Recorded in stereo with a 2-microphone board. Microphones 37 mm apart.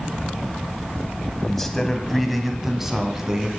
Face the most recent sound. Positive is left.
turn(degrees=-15)  # may be behind; listen again after turning